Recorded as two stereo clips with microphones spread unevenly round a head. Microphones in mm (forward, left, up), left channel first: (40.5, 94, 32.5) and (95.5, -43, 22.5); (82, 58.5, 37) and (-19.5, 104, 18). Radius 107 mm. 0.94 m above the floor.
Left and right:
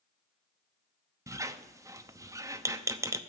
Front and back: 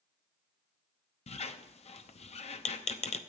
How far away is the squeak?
About 0.8 m.